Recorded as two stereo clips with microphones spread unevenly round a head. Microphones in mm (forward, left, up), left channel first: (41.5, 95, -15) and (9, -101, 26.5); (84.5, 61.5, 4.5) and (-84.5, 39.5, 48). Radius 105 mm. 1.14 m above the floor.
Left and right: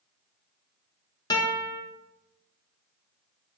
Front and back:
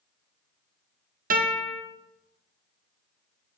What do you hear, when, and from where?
1.3 s a guitar: 145° left, 1.7 m